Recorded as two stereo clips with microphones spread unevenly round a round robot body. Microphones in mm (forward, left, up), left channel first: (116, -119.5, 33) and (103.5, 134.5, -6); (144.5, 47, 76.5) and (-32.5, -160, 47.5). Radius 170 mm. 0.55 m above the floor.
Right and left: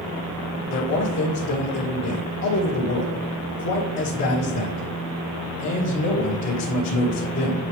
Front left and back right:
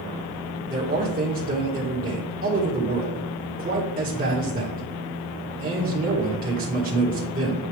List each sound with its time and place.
0.7 s a man speaking: 80° right, 1.7 m